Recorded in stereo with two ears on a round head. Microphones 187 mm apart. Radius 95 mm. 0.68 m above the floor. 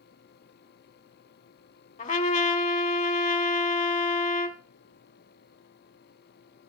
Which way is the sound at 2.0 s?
35° left (ahead or behind).